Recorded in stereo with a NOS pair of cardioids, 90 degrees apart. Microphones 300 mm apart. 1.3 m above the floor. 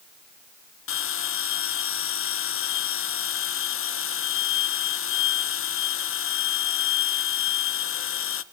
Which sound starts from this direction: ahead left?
A bell, at 0.9 s.